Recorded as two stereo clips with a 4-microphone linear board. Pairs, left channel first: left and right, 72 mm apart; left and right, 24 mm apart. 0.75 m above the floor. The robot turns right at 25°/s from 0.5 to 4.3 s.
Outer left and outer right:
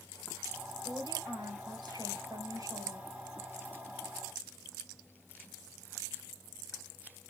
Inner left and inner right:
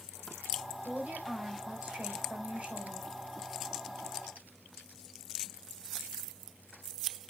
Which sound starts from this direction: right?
A woman speaking, at 0.8 s.